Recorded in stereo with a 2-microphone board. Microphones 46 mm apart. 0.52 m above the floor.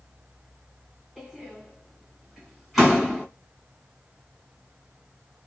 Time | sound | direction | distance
1.2 | a door slam | centre (ahead or behind) | 1.8 m